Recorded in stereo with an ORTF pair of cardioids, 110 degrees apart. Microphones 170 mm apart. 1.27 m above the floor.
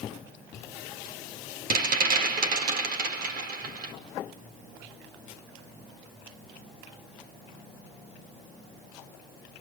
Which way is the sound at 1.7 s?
60° right.